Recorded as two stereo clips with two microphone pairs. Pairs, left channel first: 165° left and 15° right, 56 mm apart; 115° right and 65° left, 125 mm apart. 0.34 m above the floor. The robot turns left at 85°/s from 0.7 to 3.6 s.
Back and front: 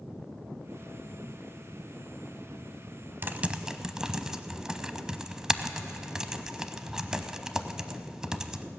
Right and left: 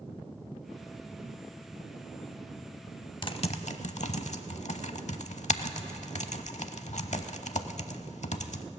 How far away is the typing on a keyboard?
About 0.6 m.